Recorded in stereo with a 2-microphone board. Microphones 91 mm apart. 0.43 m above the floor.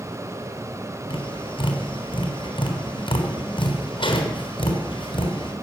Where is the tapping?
70° left (ahead or behind), 3.5 m.